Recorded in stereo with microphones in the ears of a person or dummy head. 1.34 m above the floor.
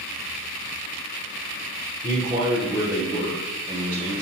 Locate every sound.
2.0 s a man speaking: 15° right (ahead or behind), 0.6 m